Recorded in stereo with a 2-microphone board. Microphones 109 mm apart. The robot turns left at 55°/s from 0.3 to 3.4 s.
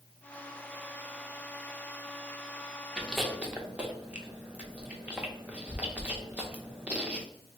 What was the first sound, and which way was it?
Chewing, 10° left (ahead or behind).